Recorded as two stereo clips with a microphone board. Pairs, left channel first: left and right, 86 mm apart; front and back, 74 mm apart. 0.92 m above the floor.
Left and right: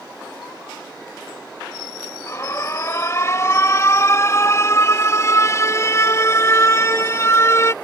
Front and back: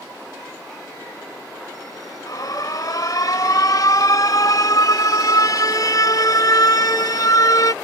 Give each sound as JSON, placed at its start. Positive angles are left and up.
{"t": 2.3, "sound": "an alarm", "azimuth_deg": 35}